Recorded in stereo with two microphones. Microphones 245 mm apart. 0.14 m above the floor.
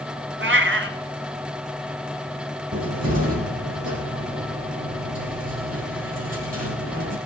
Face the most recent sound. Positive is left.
turn(degrees=-75)  # may be behind; listen again after turning